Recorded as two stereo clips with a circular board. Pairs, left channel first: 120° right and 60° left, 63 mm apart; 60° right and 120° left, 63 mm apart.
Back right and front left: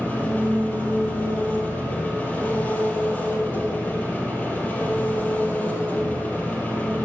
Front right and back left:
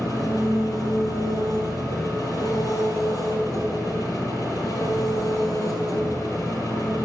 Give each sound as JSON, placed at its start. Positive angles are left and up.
{"t": 0.0, "sound": "an engine running", "azimuth_deg": -55, "distance_m": 3.0}